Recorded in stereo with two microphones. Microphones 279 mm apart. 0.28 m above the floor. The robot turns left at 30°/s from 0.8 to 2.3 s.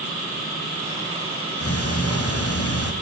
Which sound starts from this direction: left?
Ticking, at 1.6 s.